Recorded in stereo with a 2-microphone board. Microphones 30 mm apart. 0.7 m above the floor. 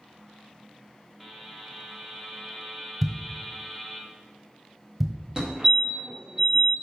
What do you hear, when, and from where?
1.2 s a buzzer: 5° right (ahead or behind), 1.4 m
3.0 s a thud: 5° right (ahead or behind), 1.2 m
5.4 s a fire alarm: 30° right (ahead or behind), 1.8 m